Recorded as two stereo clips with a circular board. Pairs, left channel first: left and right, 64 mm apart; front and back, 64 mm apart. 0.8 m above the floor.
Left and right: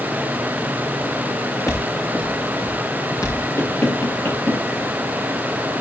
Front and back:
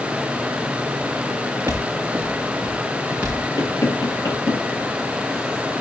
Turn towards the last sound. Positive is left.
turn(degrees=35)